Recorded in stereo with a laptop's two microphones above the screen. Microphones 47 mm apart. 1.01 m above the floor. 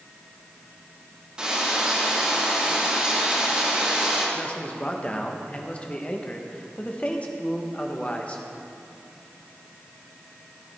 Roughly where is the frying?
Centre.